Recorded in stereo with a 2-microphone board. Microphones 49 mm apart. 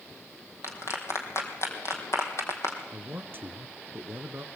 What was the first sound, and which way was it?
A clap, 65° left (ahead or behind).